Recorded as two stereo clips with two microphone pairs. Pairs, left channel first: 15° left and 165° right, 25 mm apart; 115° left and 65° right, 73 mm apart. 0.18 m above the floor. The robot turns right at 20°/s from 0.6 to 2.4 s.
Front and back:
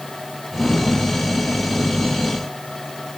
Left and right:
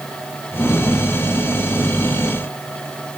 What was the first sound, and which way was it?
Only background noise.